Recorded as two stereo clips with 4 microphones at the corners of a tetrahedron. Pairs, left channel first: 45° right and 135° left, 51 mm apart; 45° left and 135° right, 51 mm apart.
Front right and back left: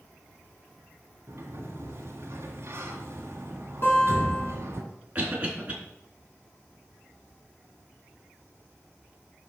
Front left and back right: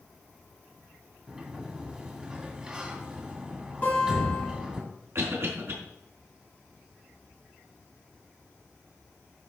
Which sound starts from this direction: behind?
A cough, at 5.2 s.